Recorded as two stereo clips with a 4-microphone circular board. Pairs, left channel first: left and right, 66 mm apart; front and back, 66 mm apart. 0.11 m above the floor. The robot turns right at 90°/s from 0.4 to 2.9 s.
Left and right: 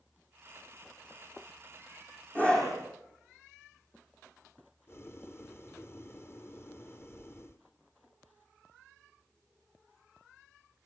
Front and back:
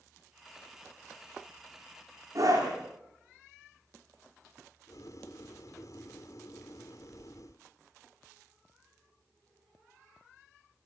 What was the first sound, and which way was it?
A scream, 150° left.